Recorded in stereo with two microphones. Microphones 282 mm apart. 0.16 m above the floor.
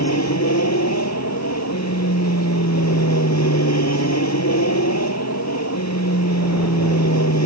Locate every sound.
0.0 s an aircraft: 65° left (ahead or behind)